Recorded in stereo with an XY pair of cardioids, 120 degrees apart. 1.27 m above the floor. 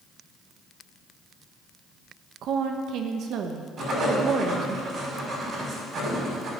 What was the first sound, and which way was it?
A woman speaking, 65° right.